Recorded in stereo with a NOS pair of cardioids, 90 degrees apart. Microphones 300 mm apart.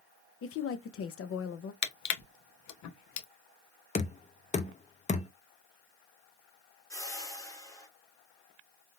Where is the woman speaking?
50° left, 0.7 m.